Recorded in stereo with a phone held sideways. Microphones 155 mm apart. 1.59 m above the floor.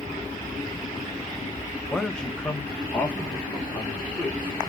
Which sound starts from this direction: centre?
A man speaking, at 1.9 s.